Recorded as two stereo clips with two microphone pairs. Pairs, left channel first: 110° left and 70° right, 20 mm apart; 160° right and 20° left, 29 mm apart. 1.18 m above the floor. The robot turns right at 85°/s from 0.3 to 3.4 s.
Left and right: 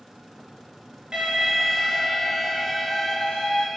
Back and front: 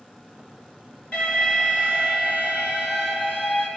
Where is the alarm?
125° right, 5 m; by 3.7 s 70° left, 5 m.